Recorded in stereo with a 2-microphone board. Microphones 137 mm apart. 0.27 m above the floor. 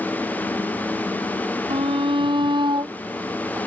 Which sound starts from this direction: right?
A shout, at 1.7 s.